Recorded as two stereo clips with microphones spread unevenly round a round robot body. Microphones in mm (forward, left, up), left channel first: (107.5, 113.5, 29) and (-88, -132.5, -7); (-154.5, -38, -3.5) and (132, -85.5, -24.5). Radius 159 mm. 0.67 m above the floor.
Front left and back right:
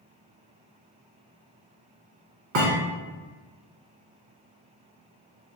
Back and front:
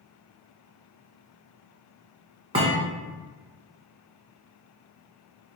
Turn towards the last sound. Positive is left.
turn(degrees=-80)